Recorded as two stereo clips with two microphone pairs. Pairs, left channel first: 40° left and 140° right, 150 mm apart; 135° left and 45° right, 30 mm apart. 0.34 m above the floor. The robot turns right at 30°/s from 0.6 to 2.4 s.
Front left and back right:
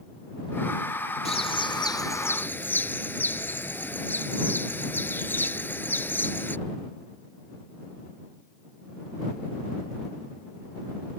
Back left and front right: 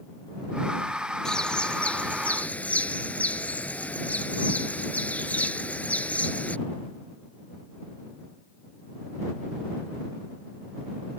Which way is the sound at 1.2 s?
80° left.